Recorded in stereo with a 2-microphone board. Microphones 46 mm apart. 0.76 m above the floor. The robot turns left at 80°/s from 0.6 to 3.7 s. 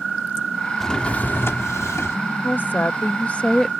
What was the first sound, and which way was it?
A drawer, 175° left.